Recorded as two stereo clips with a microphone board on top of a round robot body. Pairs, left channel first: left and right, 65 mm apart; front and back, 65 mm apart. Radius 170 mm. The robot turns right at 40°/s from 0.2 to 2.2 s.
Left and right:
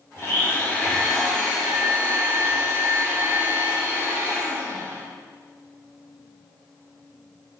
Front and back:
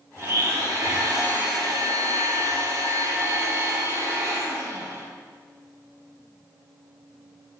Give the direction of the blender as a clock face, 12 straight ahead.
8 o'clock.